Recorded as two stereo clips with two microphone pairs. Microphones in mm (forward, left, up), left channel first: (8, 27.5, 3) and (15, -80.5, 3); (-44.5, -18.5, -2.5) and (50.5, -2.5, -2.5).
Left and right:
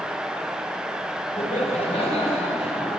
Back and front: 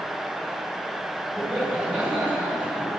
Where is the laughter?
90° left, 3.5 m; by 3.0 s 85° left, 4.5 m.